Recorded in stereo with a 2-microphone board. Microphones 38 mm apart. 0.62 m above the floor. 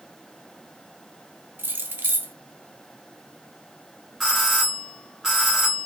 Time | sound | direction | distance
1.6 | keys jangling | 70° right (ahead or behind) | 0.7 m
4.2 | a doorbell | 10° right (ahead or behind) | 2.5 m